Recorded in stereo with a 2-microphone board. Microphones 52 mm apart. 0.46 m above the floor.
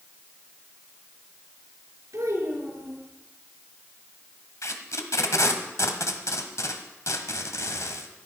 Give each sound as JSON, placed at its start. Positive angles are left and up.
{"t": 2.1, "sound": "a child speaking", "side_deg": -75, "distance_m": 6.5}
{"t": 4.6, "sound": "tape being pulled", "side_deg": 70, "distance_m": 1.5}